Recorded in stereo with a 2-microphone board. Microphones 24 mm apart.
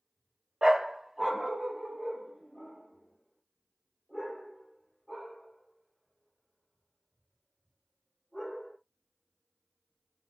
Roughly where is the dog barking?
Right.